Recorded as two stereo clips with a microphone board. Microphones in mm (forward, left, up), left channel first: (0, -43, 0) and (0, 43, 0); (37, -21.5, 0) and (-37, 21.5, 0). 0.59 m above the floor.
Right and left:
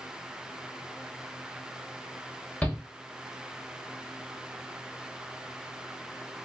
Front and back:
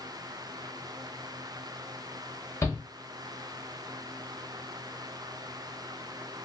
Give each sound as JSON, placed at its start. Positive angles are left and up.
{"t": 2.6, "sound": "a shout", "azimuth_deg": -30, "distance_m": 0.7}